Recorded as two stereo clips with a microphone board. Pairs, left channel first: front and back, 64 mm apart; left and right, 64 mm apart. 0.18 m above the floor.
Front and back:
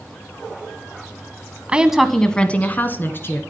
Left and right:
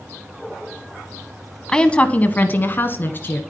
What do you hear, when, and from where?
1.7 s a woman speaking: 150° left, 1.0 m; by 3.4 s 40° left, 2 m